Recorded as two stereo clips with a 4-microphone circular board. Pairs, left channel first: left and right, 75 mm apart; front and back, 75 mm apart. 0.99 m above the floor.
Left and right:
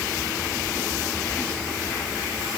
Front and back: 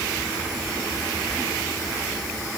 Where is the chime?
I don't hear a chime.